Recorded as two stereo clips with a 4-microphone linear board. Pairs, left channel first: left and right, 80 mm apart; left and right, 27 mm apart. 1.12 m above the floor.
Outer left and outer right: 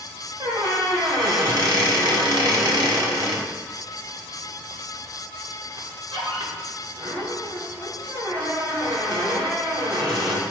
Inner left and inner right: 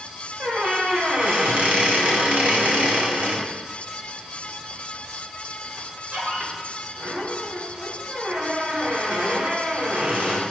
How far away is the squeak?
About 1.6 m.